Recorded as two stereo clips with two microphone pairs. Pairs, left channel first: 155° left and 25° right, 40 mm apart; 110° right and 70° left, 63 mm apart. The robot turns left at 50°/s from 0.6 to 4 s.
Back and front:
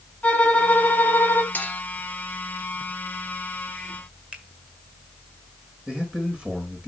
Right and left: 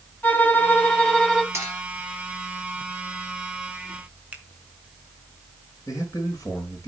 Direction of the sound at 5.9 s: 85° right.